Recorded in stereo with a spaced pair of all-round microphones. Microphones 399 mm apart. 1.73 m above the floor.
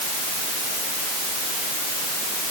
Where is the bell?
I don't hear a bell.